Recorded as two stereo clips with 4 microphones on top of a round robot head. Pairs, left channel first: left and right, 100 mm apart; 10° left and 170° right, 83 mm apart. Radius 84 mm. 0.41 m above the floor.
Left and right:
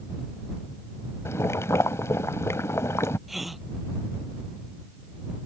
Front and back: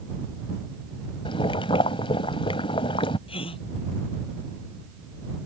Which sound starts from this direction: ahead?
A gasp, at 3.3 s.